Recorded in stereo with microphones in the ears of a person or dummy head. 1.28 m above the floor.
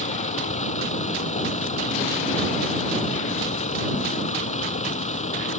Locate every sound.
0.0 s a vehicle: 35° left (ahead or behind)